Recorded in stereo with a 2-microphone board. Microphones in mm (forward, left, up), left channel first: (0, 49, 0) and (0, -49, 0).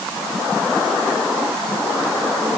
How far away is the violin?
I don't hear a violin.